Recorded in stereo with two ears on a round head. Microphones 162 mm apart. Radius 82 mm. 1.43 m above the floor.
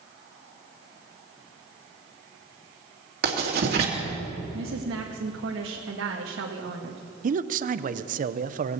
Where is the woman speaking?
75° right (ahead or behind), 1.6 m.